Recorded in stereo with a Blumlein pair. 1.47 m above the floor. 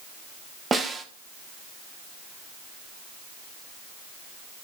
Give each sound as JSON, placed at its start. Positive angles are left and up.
{"t": 0.7, "sound": "a snare drum", "azimuth_deg": -15, "distance_m": 1.5}